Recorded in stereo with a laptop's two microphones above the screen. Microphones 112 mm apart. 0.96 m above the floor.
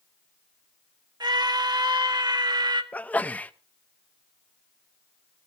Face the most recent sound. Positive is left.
turn(degrees=15)  # may be behind; listen again after turning